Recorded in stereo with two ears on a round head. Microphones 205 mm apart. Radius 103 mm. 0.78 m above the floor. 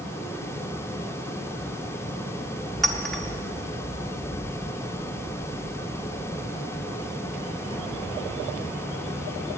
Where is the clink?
Centre (ahead or behind), 1.1 m.